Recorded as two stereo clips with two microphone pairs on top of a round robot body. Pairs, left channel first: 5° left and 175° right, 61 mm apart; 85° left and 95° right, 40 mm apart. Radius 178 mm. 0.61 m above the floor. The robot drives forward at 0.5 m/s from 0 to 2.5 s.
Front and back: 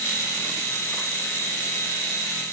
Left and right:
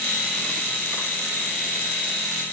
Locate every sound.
Only background noise.